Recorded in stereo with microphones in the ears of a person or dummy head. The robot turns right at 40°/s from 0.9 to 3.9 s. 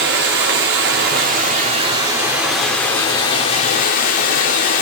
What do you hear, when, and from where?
0.0 s running water: 65° right, 0.8 m; by 4.8 s 55° left, 0.8 m